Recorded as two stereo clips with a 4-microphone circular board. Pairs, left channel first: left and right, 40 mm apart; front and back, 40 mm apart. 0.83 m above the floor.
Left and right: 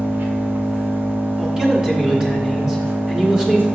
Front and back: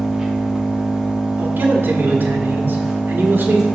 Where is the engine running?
110° right, 1.4 m.